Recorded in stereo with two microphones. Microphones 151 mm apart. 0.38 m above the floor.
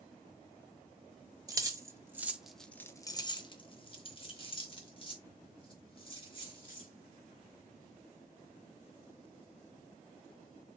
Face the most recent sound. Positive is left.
turn(degrees=35)  # may be behind; listen again after turning